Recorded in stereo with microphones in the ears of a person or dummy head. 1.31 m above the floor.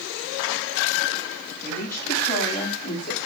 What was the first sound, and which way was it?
A woman speaking, 15° left (ahead or behind).